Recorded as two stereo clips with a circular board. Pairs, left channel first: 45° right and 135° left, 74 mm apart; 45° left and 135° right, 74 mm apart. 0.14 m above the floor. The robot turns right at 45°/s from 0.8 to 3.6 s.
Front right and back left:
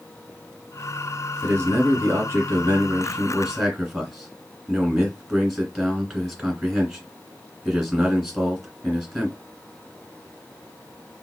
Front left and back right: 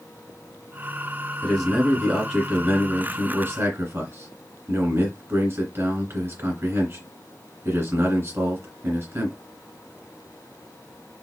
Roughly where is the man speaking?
Behind left.